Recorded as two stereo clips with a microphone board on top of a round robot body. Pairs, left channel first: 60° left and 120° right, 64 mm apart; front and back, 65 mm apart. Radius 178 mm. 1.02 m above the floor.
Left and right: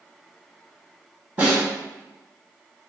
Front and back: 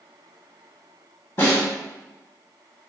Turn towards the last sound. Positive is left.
turn(degrees=-50)